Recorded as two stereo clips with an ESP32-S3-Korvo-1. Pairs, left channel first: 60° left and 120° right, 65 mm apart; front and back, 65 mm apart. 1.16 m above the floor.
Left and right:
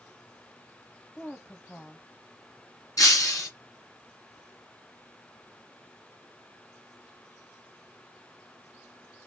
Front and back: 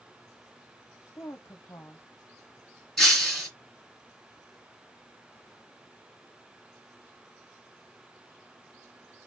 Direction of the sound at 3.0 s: 85° left.